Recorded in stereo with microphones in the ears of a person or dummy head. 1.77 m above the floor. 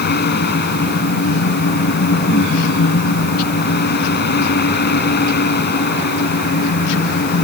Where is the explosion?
I don't hear an explosion.